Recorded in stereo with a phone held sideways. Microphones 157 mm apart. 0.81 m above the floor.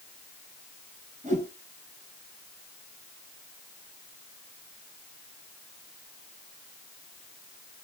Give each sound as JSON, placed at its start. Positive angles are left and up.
{"t": 1.2, "sound": "a whoosh", "side_deg": -50, "distance_m": 2.5}